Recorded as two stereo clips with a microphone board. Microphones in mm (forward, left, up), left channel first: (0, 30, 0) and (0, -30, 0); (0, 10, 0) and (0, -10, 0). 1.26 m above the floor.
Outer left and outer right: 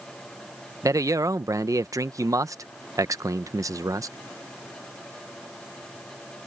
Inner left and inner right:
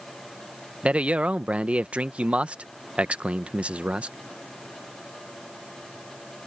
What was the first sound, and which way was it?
A man speaking, 65° right (ahead or behind).